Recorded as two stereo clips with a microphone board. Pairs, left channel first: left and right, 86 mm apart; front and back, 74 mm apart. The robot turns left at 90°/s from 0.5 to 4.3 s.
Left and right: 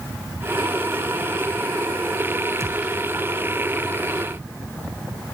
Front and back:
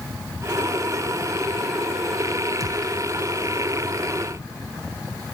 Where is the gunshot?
140° right, 1.2 m; by 3.0 s 175° right, 1.2 m.